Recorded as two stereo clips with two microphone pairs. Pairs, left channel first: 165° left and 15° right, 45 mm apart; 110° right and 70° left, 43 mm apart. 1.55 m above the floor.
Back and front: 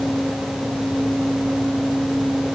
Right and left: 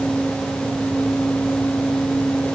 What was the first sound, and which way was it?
Only background noise.